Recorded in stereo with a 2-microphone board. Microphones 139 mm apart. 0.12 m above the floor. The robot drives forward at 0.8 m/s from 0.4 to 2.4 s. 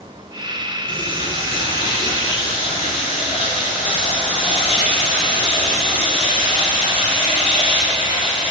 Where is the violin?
No violin in this recording.